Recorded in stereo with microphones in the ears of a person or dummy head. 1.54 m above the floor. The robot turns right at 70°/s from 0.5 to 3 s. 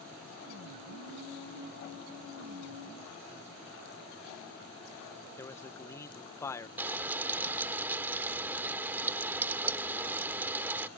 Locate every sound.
5.4 s a man speaking: 15° left (ahead or behind)
6.8 s frying: 10° right (ahead or behind)